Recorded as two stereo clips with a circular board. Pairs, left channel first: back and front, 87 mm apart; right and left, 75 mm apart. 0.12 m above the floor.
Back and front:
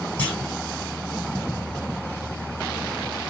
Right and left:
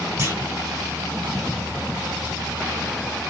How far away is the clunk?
About 1.5 m.